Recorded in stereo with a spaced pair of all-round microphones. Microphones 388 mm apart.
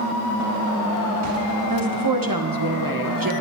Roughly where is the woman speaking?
Right.